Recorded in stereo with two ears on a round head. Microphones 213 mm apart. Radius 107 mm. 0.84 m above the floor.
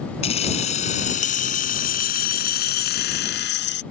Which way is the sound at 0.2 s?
25° left (ahead or behind).